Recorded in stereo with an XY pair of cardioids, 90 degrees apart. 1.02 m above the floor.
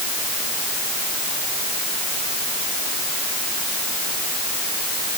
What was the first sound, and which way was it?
Only background noise.